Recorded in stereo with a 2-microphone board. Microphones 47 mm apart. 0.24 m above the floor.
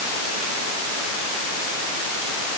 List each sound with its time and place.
Only background noise.